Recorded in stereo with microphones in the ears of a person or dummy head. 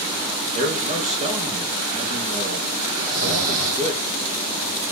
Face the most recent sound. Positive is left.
turn(degrees=-80)